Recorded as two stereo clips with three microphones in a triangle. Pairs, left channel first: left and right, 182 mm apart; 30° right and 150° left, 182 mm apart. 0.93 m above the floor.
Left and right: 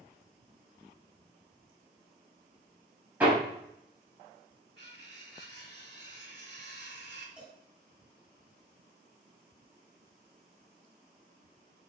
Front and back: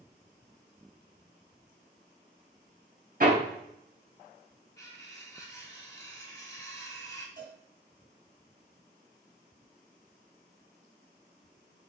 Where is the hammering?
170° right, 4 m.